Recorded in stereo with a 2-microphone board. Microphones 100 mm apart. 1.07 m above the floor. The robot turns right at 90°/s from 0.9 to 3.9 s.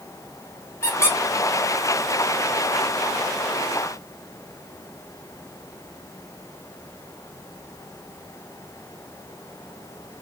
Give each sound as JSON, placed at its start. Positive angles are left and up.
{"t": 0.8, "sound": "a squeak", "side_deg": 30, "distance_m": 0.8}